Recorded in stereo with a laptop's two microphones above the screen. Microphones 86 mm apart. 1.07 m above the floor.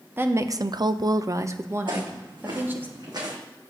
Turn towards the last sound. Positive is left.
turn(degrees=-55)  # may be behind; listen again after turning